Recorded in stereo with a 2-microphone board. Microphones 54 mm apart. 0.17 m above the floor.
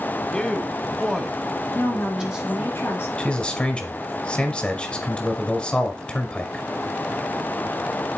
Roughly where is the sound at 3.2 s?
Left.